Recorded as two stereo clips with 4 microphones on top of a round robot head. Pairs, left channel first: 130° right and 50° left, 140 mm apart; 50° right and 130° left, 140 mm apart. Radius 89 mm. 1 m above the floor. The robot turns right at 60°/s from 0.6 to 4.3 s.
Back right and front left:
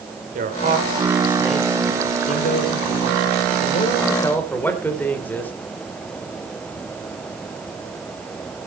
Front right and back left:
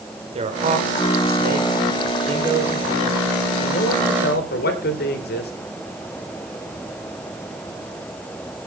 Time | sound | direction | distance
0.3 | a man speaking | 85° left | 3 m